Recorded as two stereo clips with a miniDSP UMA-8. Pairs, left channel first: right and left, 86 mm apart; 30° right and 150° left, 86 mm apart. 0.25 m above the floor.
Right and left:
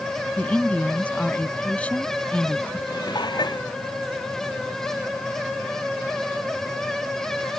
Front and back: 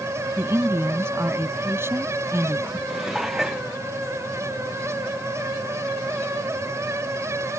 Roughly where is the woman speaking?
Behind.